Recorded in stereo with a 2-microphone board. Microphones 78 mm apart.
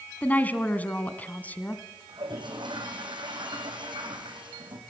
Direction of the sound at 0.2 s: 20° left (ahead or behind).